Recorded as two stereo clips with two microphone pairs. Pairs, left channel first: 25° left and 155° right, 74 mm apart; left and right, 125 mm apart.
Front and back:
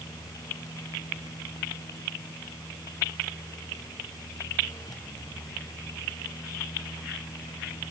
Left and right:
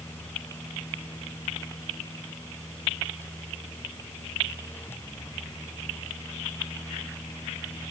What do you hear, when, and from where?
Only background noise.